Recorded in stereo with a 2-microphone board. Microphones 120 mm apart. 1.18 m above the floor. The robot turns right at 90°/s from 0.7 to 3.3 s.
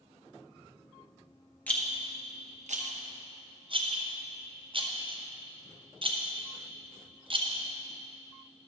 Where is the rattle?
15° left (ahead or behind), 0.9 m; by 7.7 s 45° right (ahead or behind), 0.9 m.